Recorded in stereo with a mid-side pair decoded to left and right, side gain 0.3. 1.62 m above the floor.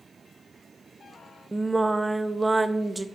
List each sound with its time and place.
1.5 s singing: 25° right, 0.5 m